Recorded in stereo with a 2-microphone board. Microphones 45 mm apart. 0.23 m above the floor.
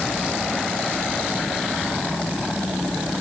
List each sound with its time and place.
Only background noise.